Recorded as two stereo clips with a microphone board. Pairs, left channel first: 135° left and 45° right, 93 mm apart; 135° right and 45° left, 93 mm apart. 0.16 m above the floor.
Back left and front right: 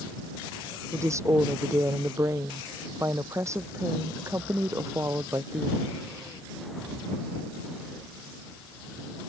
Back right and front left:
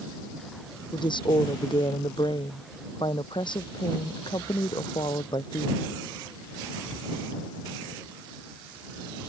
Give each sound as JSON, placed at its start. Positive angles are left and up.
{"t": 0.9, "sound": "a woman speaking", "azimuth_deg": -105}